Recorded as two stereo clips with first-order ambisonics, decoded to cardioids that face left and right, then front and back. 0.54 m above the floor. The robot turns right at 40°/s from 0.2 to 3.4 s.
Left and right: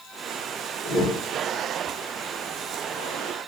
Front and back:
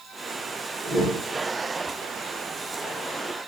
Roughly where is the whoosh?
Behind.